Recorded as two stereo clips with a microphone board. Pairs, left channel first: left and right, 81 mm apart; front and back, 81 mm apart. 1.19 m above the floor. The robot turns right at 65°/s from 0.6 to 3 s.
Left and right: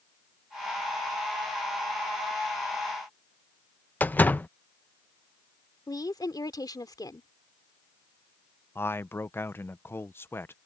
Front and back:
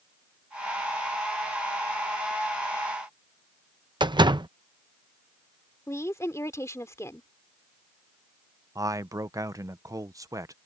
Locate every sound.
4.0 s a door slam: 160° left
5.9 s a woman speaking: 55° left
8.8 s a man speaking: 145° left